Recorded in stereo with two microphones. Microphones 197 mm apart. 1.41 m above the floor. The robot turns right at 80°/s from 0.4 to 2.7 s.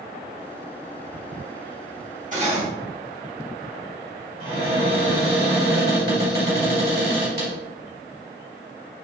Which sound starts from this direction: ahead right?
Cutlery clinking, at 2.3 s.